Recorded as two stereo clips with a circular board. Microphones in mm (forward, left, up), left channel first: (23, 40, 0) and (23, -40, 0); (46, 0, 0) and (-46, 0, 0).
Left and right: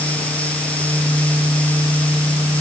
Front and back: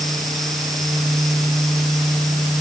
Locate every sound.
Only background noise.